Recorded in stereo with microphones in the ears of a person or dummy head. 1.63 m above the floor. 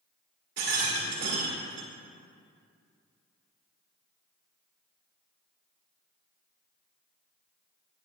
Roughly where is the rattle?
Right.